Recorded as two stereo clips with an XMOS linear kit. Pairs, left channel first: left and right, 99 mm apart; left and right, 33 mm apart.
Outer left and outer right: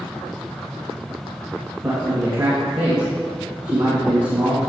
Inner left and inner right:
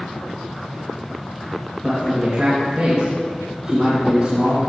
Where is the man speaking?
20° right (ahead or behind), 2 m.